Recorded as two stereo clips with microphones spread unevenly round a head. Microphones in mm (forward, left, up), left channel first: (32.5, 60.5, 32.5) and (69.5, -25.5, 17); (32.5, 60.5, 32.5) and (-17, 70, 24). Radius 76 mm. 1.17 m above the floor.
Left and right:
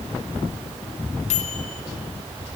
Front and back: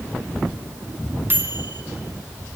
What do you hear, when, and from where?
1.3 s a microwave: 120° left, 2.5 m